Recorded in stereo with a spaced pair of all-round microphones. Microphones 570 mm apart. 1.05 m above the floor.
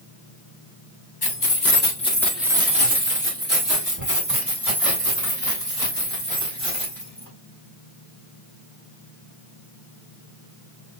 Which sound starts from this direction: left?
Keys jangling, at 1.2 s.